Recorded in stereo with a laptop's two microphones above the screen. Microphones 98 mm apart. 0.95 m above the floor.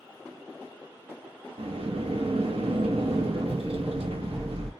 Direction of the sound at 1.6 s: 80° right.